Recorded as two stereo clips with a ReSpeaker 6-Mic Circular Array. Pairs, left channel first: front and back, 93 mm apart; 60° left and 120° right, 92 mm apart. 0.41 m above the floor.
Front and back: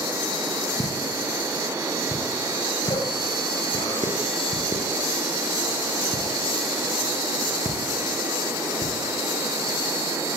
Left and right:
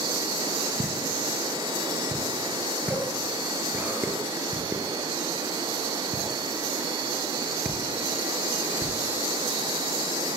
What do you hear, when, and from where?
0.8 s a pop: 50° right, 6.5 m